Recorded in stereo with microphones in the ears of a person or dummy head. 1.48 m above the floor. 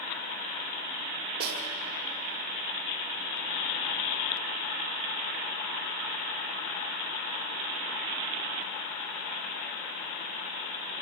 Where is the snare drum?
60° right (ahead or behind), 1.8 m.